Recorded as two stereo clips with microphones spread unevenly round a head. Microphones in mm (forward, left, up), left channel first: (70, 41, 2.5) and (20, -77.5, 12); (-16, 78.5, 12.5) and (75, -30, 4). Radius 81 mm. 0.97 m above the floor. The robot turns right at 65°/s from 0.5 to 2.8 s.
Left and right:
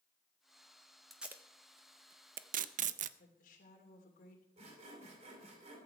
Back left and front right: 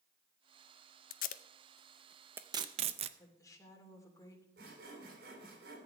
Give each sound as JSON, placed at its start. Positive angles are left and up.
{"t": 1.1, "sound": "tape being pulled", "azimuth_deg": 155, "distance_m": 0.5}
{"t": 3.2, "sound": "a woman speaking", "azimuth_deg": 60, "distance_m": 3.0}
{"t": 4.6, "sound": "sawing", "azimuth_deg": -80, "distance_m": 3.0}